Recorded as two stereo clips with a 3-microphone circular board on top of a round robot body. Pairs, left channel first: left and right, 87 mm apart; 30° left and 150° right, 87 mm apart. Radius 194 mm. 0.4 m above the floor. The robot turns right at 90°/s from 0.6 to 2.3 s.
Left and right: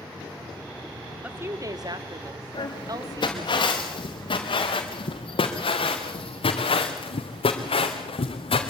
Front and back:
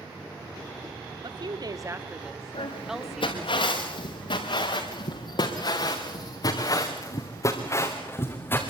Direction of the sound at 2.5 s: 50° left.